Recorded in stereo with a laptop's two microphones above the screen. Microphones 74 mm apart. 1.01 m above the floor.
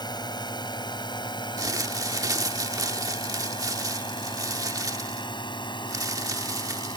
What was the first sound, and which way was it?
A drone, 65° left (ahead or behind).